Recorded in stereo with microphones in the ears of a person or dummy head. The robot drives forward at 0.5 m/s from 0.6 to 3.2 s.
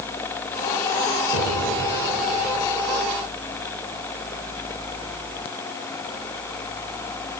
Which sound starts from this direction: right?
An explosion, at 1.3 s.